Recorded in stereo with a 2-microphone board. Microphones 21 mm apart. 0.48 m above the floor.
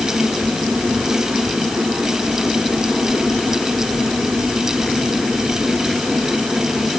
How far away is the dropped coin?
No dropped coin in this recording.